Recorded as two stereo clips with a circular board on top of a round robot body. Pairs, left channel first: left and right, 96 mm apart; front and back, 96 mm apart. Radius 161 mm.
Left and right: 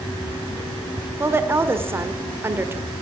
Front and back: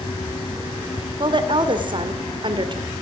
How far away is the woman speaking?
About 2.0 m.